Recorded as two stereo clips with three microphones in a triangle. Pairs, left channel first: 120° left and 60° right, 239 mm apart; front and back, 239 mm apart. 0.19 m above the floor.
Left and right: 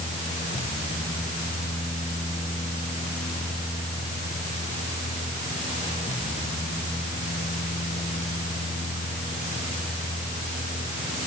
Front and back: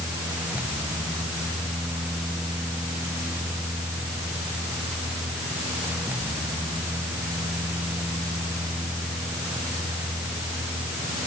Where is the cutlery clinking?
No cutlery clinking in this recording.